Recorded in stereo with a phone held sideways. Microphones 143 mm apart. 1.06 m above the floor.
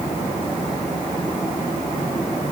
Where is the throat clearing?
No throat clearing in this recording.